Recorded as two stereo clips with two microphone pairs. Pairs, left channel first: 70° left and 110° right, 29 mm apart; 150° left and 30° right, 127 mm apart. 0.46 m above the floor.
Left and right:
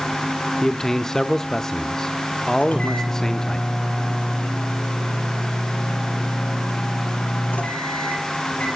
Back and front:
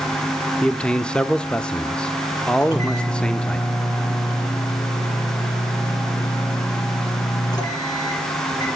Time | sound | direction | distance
0.6 | a man speaking | 80° left | 0.7 m
2.6 | a microwave | 95° left | 8.5 m